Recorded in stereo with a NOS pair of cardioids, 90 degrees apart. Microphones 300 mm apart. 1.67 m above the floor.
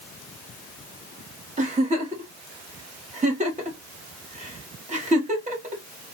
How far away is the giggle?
About 2.5 m.